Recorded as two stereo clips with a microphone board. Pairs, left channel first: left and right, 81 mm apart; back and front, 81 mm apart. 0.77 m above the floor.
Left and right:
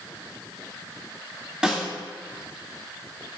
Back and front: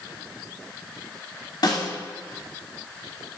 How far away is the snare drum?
About 2.5 m.